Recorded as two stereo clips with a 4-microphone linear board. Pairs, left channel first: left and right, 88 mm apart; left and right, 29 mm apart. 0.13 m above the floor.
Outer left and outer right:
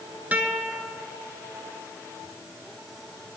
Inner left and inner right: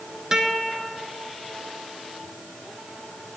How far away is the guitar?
About 1.0 m.